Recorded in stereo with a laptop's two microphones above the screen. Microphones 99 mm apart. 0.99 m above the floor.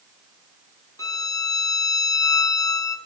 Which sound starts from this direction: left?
A violin, at 1.0 s.